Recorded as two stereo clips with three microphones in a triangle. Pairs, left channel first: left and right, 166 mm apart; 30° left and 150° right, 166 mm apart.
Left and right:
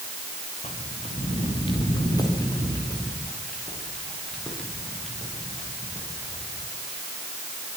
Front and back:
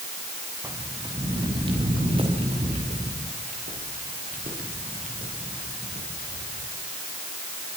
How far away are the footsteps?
About 5.5 m.